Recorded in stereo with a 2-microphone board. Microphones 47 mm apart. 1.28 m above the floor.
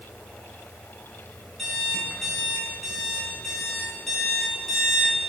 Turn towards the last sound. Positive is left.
turn(degrees=5)  # may be behind; listen again after turning